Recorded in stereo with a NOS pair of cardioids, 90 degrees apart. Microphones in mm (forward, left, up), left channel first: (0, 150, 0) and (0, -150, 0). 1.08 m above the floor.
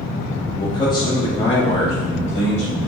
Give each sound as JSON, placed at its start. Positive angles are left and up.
{"t": 0.6, "sound": "a man speaking", "azimuth_deg": 10, "distance_m": 2.0}